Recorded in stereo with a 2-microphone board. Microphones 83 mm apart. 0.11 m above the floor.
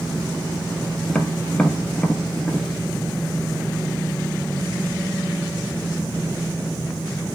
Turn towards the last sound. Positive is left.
turn(degrees=10)  # may be behind; listen again after turning